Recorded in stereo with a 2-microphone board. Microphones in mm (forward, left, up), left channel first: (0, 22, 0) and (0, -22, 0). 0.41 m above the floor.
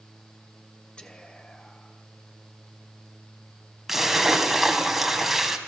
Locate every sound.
1.0 s whispering: 20° left (ahead or behind), 2 m
3.9 s a splash: 5° right (ahead or behind), 2 m